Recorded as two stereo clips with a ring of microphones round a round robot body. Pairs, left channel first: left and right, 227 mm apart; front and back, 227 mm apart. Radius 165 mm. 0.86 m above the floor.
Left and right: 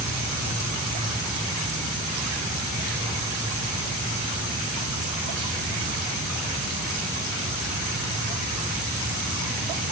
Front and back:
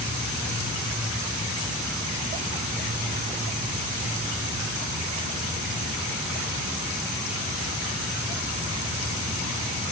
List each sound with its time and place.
Only background noise.